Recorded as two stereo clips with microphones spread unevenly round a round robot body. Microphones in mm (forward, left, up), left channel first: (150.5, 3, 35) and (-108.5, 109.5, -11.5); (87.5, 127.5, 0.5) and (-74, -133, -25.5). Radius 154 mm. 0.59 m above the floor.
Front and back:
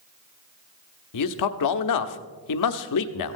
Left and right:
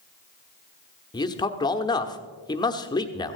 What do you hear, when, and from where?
1.1 s a man speaking: 20° right, 1.0 m